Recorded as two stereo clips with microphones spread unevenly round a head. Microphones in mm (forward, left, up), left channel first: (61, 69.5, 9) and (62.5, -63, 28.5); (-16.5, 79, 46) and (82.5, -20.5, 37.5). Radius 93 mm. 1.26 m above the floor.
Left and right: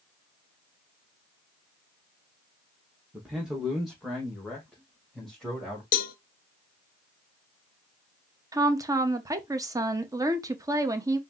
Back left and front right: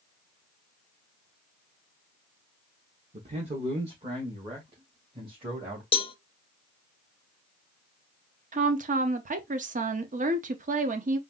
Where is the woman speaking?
20° right, 0.9 m.